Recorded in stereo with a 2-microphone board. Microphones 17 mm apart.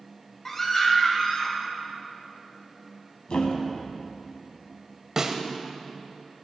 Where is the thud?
70° left (ahead or behind), 1.2 m.